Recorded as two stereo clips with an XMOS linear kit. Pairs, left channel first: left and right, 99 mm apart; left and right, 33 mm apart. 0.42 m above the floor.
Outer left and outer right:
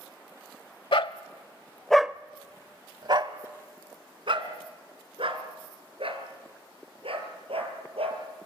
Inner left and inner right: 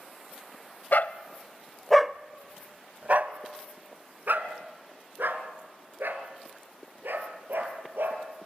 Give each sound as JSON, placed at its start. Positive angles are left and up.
{"t": 0.9, "sound": "a dog barking", "side_deg": 65, "distance_m": 0.8}